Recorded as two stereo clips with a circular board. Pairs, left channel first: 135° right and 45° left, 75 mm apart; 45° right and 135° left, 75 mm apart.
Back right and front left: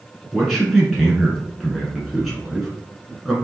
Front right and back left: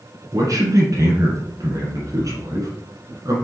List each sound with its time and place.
0.3 s a man speaking: 140° left, 1.8 m